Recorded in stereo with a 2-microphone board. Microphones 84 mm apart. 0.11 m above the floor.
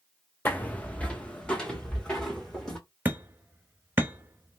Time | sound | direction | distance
0.5 | footsteps | 20° left (ahead or behind) | 0.5 m
3.0 | hammering | 25° right (ahead or behind) | 0.6 m